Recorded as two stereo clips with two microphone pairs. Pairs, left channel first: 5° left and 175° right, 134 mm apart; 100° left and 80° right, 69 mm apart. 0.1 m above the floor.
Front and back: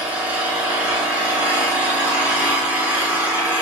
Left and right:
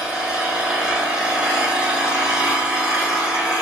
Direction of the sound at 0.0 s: 115° right.